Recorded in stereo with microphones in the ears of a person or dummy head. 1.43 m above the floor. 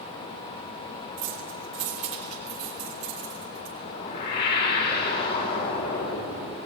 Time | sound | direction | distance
1.2 | keys jangling | 40° right (ahead or behind) | 2.5 m
3.8 | a whoosh | 50° left (ahead or behind) | 4 m